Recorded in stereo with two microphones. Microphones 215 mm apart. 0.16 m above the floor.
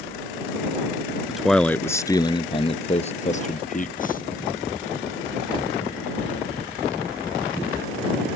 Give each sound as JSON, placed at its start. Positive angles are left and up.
{"t": 1.3, "sound": "a man speaking", "side_deg": -5}